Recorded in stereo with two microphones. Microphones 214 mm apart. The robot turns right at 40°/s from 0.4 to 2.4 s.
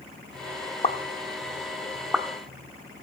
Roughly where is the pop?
Left.